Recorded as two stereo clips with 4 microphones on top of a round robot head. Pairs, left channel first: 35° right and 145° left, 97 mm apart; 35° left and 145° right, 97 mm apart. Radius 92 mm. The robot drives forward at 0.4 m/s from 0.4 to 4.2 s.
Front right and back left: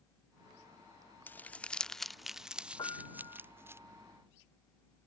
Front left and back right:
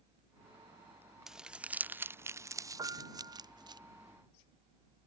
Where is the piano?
90° right.